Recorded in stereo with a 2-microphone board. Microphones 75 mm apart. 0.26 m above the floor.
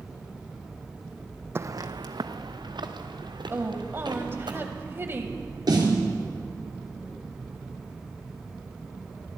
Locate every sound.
1.6 s footsteps: 30° right (ahead or behind), 0.5 m; by 4.5 s 75° right (ahead or behind), 4 m
3.5 s a woman speaking: 30° right (ahead or behind), 1.2 m
5.7 s a snare drum: 60° right (ahead or behind), 3.5 m